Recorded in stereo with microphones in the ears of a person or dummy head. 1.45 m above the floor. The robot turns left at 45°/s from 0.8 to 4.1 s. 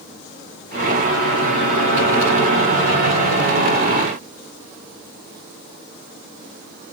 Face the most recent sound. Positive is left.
No sound to turn to.